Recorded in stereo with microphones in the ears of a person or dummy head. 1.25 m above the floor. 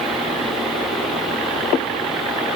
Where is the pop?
I don't hear a pop.